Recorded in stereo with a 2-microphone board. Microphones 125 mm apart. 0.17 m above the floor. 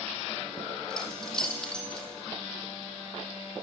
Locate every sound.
0.9 s keys jangling: 5° left (ahead or behind), 4.5 m